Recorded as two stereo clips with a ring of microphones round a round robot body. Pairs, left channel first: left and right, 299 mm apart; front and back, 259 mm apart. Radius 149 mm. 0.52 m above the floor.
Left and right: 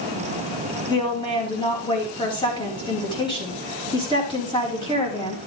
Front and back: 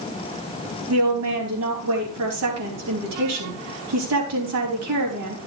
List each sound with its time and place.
0.9 s a woman speaking: 165° left, 4.5 m